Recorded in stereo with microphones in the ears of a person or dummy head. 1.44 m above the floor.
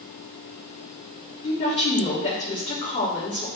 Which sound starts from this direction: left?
A woman speaking, at 1.4 s.